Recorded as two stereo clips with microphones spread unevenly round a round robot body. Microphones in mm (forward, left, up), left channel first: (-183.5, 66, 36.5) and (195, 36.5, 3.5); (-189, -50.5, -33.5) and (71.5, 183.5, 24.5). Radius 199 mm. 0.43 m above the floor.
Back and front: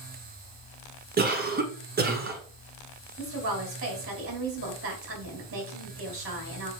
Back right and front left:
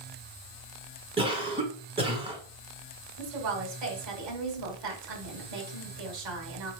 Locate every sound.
1.2 s a cough: 40° right, 1.3 m
3.2 s a woman speaking: 50° left, 3.5 m